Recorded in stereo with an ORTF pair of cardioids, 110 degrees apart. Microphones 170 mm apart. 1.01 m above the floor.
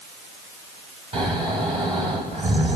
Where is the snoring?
35° right, 5.5 m.